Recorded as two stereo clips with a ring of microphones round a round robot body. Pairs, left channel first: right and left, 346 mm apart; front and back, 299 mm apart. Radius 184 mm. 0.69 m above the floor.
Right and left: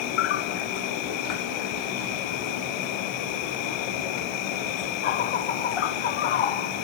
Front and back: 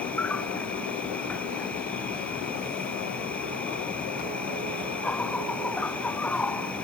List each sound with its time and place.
0.0 s an insect: 85° right